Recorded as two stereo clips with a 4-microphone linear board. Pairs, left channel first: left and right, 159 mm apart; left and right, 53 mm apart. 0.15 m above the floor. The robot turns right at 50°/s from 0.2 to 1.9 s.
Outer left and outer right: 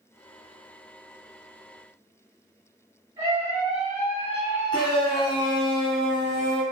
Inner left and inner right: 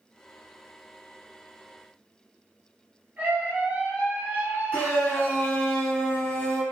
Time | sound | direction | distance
3.2 | a scream | 30° right (ahead or behind) | 1.9 m
4.7 | a shout | 30° left (ahead or behind) | 1.3 m